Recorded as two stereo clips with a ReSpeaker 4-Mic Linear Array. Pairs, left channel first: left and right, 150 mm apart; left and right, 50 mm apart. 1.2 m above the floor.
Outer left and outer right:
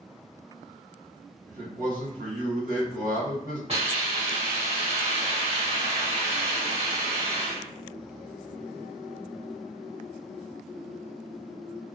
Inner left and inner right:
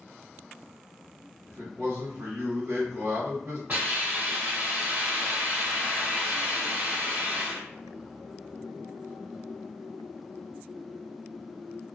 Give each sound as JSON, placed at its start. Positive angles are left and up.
{"t": 1.5, "sound": "a man speaking", "side_deg": -70, "distance_m": 1.7}
{"t": 3.7, "sound": "a hiss", "side_deg": -40, "distance_m": 1.5}